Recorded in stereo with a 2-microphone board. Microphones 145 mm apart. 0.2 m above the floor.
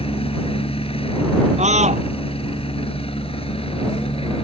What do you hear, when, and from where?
0.0 s a helicopter: 40° left (ahead or behind)
1.6 s a scream: 50° right (ahead or behind)